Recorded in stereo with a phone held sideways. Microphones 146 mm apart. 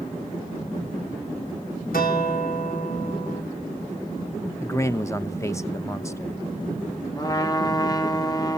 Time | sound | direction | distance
1.9 | a guitar | 80° left | 3 m
4.6 | a man speaking | 20° left (ahead or behind) | 0.8 m
7.2 | a trumpet | 25° left (ahead or behind) | 0.9 m